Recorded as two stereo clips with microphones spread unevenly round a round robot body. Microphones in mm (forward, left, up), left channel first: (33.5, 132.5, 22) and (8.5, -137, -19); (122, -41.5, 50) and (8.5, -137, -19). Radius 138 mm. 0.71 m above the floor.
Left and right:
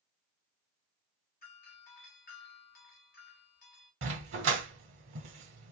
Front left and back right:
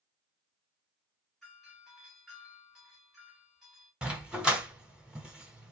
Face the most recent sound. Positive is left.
turn(degrees=-50)